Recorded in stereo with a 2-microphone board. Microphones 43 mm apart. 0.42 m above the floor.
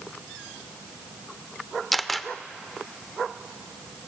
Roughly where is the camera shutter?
Centre.